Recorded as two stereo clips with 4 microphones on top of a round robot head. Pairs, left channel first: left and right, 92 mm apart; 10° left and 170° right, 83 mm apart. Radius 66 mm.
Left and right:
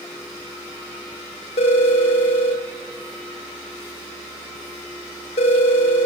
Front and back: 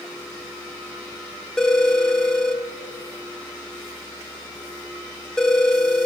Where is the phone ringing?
95° left, 1.3 m.